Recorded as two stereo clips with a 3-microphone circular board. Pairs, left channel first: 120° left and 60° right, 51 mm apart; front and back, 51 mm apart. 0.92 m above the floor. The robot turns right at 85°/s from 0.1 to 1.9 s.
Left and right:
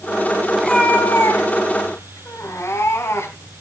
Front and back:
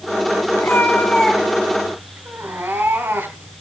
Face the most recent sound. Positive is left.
turn(degrees=140)